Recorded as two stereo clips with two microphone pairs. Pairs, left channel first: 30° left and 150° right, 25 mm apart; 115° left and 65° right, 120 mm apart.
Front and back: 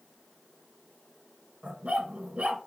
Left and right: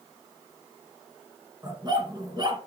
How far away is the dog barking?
About 2.5 m.